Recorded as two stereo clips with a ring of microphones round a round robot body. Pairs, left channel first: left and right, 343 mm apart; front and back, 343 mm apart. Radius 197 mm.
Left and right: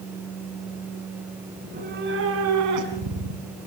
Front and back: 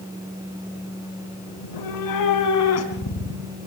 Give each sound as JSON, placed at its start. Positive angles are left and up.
{"t": 1.6, "sound": "a cat meowing", "azimuth_deg": -15, "distance_m": 4.0}